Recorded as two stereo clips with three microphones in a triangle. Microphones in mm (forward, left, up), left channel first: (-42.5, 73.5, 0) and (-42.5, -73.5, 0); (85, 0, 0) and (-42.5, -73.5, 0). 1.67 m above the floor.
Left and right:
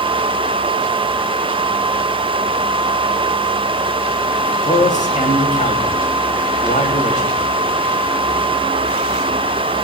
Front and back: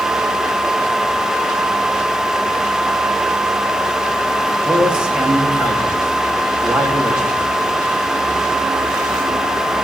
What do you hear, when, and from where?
4.7 s a man speaking: 125° left, 3.5 m